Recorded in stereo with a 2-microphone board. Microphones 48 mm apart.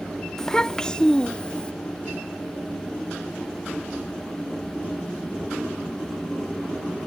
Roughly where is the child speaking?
Centre.